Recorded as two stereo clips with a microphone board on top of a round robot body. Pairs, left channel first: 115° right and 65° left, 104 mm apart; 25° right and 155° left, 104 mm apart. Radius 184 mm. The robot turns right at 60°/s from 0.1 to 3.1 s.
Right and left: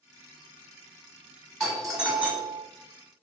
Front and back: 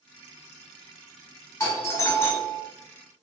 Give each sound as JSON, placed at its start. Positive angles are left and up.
{"t": 1.6, "sound": "a doorbell", "azimuth_deg": -30, "distance_m": 1.3}